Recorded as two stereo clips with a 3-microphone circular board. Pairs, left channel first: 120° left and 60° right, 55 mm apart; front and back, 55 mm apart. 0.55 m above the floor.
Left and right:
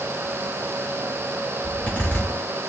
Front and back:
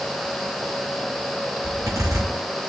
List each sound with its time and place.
1.6 s a zipper: 175° right, 4.5 m